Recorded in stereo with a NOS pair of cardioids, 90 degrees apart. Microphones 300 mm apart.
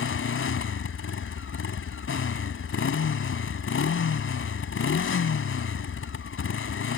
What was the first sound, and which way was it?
A motorcycle, 45° left.